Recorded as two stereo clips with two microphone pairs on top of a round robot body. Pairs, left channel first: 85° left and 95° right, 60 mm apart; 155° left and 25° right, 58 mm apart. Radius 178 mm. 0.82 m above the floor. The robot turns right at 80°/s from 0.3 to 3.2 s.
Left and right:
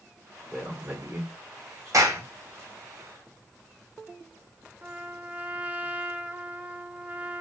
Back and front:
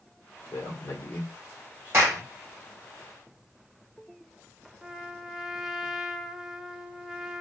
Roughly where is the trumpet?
Right.